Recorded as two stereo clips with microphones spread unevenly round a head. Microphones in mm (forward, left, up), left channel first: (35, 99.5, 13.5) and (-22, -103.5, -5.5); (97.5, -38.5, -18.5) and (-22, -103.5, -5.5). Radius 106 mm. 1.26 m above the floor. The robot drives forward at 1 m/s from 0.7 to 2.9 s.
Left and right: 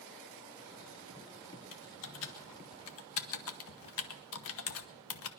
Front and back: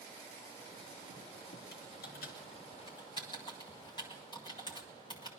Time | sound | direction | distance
1.7 | typing on a keyboard | 45° left | 1.5 m